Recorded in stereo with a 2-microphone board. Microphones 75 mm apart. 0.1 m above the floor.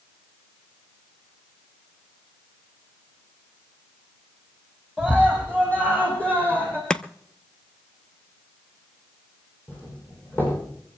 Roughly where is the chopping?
Centre.